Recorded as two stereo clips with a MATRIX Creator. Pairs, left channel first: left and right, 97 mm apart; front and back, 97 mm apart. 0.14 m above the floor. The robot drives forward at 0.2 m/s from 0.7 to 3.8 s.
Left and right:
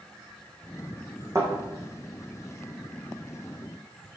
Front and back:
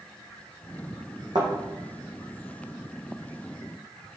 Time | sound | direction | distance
1.4 | a thud | 145° right | 1.6 m